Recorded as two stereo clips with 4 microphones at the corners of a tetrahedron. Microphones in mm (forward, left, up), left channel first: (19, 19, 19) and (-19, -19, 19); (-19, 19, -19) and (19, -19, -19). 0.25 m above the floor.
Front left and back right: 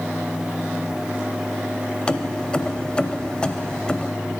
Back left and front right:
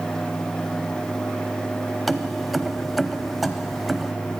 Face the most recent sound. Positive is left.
turn(degrees=45)